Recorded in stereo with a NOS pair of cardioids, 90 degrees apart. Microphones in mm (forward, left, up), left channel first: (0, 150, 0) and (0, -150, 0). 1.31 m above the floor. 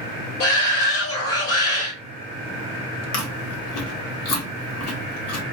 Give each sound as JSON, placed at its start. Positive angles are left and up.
{"t": 0.4, "sound": "a shout", "azimuth_deg": 55, "distance_m": 1.7}
{"t": 3.1, "sound": "chewing", "azimuth_deg": 60, "distance_m": 1.2}